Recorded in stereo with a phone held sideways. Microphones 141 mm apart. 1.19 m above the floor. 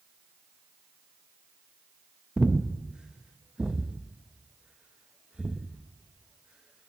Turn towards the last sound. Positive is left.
turn(degrees=-5)  # may be behind; listen again after turning